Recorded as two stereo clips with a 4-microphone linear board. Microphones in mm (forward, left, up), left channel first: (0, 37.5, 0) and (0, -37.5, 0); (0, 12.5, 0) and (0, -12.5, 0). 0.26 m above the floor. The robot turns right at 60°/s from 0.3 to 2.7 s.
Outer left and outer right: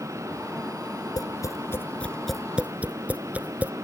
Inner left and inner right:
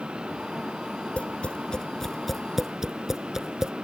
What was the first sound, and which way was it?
Tapping, 65° left (ahead or behind).